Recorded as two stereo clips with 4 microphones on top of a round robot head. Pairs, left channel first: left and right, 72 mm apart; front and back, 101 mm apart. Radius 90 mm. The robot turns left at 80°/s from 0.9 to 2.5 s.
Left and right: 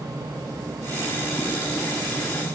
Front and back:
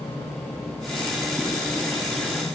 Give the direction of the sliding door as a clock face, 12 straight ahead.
I don't hear a sliding door.